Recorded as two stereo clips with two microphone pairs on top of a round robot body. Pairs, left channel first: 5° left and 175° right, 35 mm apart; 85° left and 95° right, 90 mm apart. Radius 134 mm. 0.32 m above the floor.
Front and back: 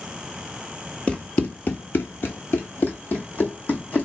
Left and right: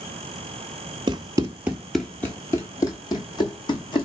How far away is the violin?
I don't hear a violin.